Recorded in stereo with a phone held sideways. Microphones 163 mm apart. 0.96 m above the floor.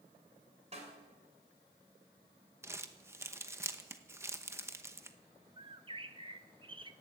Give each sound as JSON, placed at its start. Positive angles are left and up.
{"t": 0.7, "sound": "a snare drum", "side_deg": -45, "distance_m": 2.5}
{"t": 2.6, "sound": "crumpling", "side_deg": -15, "distance_m": 0.9}
{"t": 5.6, "sound": "a bird", "side_deg": -30, "distance_m": 0.7}